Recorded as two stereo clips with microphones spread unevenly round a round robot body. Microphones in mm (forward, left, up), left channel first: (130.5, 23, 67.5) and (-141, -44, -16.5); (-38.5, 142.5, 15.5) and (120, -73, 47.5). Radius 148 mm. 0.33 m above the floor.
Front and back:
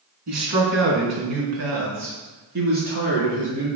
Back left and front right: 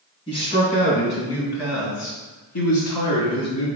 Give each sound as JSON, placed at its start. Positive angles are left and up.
{"t": 0.3, "sound": "a man speaking", "azimuth_deg": -165, "distance_m": 3.5}